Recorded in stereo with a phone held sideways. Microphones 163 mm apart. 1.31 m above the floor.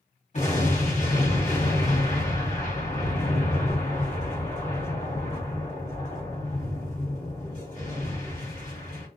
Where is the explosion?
45° left (ahead or behind), 1.4 m.